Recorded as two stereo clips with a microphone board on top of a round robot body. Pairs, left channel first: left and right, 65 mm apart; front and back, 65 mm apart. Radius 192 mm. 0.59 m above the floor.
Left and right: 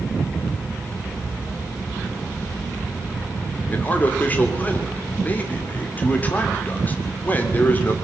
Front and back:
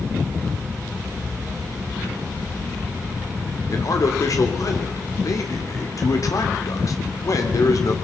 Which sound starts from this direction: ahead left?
A man speaking, at 3.7 s.